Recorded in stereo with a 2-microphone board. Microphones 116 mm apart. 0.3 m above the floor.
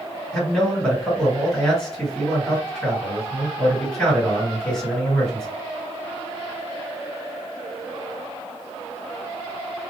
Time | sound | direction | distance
0.3 | a man speaking | 5° left (ahead or behind) | 2 m